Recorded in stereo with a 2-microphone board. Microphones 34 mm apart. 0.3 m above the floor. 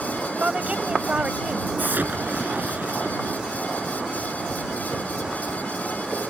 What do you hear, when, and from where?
0.4 s a woman speaking: 40° right (ahead or behind)
1.8 s an explosion: 65° right (ahead or behind)